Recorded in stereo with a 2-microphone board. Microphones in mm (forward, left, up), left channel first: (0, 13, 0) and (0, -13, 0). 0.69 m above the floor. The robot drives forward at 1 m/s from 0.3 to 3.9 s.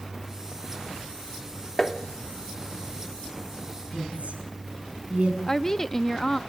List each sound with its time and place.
1.8 s tapping: 25° left (ahead or behind), 1.4 m; by 2.0 s 20° left (ahead or behind), 1.5 m
3.9 s a woman speaking: 60° right (ahead or behind), 6 m
5.5 s a woman speaking: 25° left (ahead or behind), 0.5 m